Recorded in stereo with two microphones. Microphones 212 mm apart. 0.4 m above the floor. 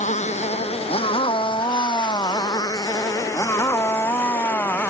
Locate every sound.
0.0 s a motorcycle: 35° left (ahead or behind); by 4.9 s 10° left (ahead or behind)